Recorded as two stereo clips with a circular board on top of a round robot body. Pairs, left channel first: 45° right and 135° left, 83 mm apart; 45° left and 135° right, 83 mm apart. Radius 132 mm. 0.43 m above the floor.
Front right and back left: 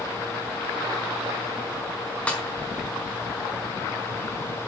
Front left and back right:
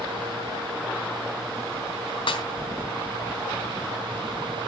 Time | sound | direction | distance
2.3 | a snare drum | 30° left | 4.5 m